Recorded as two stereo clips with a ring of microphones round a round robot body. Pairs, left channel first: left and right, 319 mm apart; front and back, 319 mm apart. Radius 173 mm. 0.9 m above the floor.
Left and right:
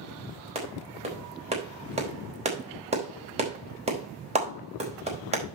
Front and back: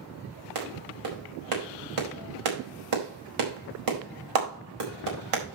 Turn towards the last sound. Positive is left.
turn(degrees=-160)